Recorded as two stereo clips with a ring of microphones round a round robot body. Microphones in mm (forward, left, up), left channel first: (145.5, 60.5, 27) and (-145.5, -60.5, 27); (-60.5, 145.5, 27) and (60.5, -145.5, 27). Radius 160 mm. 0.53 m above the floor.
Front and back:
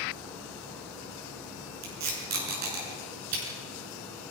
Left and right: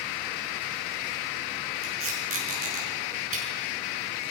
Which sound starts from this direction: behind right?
Tape being pulled, at 1.8 s.